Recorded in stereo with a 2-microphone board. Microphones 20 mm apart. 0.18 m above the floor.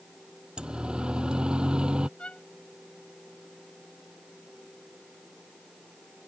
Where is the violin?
65° left (ahead or behind).